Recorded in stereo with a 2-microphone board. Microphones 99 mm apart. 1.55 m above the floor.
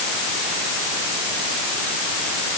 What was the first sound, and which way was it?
Only background noise.